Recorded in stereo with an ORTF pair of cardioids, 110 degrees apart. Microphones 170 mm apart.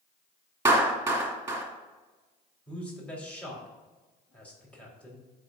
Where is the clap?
15° right, 2.5 m.